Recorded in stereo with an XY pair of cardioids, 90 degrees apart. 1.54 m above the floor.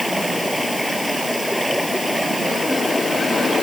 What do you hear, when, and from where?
0.0 s running water: straight ahead